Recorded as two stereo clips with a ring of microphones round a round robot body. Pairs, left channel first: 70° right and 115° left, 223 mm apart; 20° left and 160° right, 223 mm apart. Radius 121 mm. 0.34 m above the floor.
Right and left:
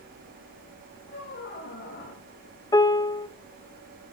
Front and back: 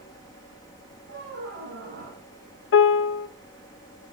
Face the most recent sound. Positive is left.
turn(degrees=5)